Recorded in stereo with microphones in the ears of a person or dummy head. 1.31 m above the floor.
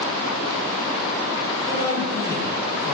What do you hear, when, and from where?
1.6 s a man speaking: 15° left (ahead or behind), 1.1 m